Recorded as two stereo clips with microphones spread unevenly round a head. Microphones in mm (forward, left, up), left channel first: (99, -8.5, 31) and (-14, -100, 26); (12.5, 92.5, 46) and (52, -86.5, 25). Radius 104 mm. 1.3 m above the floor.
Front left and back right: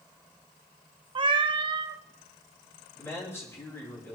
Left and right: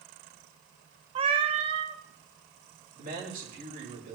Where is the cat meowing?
130° right, 0.7 m.